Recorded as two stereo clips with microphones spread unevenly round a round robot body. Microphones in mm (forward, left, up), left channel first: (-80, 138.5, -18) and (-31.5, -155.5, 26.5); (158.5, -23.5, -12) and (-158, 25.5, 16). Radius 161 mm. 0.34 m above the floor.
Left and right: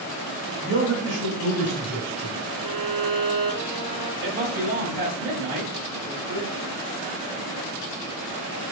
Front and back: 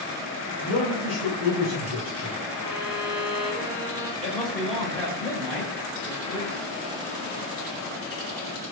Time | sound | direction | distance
0.6 | a man speaking | 25° right | 1.6 m
2.6 | a violin | 40° right | 2.0 m
4.2 | a man speaking | 80° right | 1.1 m